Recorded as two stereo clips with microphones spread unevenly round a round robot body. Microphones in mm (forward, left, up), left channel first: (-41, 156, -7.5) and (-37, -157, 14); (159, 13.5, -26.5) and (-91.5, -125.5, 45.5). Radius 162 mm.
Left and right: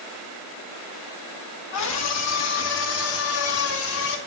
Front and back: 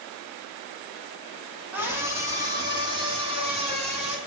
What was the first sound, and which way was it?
A scream, 120° left.